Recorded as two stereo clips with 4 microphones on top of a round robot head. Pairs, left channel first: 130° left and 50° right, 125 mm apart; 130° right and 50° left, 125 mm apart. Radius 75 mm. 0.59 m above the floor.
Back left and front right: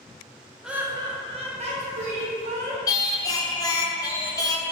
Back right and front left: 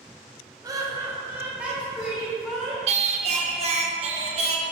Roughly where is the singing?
Left.